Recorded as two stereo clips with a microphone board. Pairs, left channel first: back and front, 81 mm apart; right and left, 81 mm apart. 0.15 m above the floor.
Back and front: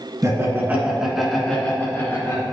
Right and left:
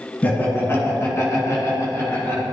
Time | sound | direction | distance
0.2 | laughter | 30° right | 2.0 m